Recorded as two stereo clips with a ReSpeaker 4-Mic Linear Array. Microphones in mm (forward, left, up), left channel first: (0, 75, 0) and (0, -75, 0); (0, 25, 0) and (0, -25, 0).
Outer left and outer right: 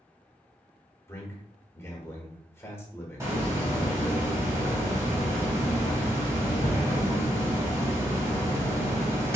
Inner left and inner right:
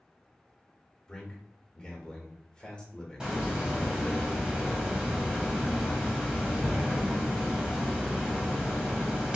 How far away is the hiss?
About 1.2 m.